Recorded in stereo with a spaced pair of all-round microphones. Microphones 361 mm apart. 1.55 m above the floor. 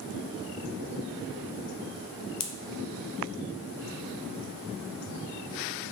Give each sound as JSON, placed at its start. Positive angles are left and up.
{"t": 2.4, "sound": "a pop", "side_deg": 65, "distance_m": 0.5}